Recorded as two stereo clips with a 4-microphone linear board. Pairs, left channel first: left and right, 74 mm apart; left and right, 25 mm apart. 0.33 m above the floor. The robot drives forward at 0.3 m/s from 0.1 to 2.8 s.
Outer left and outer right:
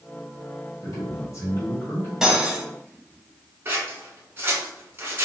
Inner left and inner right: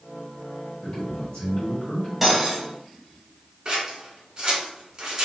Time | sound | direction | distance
0.8 | a man speaking | 45° left (ahead or behind) | 1.6 m
2.2 | cutlery clinking | 5° right (ahead or behind) | 0.8 m
3.6 | scissors | 30° right (ahead or behind) | 1.2 m